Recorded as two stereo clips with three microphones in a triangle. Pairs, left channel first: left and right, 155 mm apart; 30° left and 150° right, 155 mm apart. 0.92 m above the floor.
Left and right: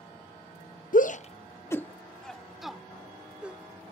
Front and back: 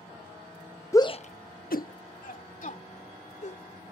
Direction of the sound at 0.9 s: 100° left.